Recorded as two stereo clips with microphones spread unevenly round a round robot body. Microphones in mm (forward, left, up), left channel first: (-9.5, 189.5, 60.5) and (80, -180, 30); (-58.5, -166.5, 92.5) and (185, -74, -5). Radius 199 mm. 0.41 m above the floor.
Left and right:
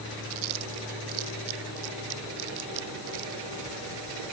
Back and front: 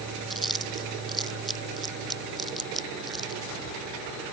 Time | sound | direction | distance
0.3 | chewing | 70° right | ?